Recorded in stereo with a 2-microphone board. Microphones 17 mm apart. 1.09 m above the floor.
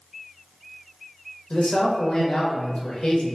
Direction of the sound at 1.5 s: 75° left (ahead or behind).